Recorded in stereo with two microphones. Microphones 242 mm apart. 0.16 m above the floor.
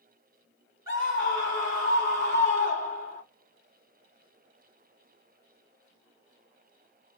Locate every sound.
0.9 s a scream: 35° left (ahead or behind), 1.5 m